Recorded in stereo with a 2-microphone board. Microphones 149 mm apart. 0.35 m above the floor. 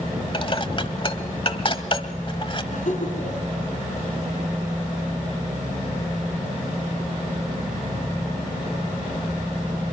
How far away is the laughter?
About 4 m.